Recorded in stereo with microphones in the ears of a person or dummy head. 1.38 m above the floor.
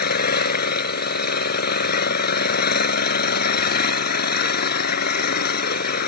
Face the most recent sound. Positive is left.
turn(degrees=60)  # may be behind; listen again after turning